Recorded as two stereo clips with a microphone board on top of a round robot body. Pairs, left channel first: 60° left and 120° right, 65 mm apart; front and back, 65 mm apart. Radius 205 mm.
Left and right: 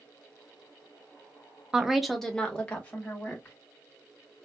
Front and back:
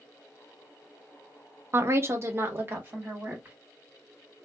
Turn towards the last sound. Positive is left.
turn(degrees=120)